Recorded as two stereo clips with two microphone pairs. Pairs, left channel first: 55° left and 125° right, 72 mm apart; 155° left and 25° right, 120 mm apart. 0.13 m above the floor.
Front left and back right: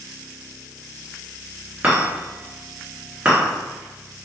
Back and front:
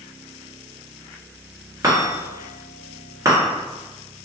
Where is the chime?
70° right, 1.6 m.